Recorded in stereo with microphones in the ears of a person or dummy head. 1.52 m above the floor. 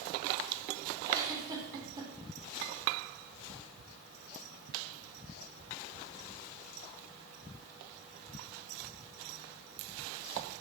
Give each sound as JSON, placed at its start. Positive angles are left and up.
{"t": 1.1, "sound": "a giggle", "side_deg": -15, "distance_m": 3.5}